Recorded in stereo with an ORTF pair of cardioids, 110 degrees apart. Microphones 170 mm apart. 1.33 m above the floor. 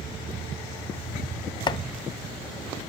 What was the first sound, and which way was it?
Chopping, 30° left.